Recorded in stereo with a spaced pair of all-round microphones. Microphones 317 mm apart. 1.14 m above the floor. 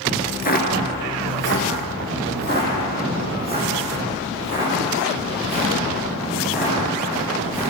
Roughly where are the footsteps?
Left.